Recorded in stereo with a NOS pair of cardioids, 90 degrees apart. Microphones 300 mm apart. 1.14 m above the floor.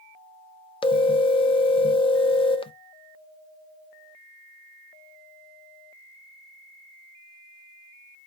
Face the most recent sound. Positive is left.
turn(degrees=20)